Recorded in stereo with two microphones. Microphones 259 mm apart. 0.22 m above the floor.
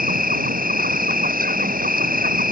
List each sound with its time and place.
0.0 s an insect: 35° right (ahead or behind)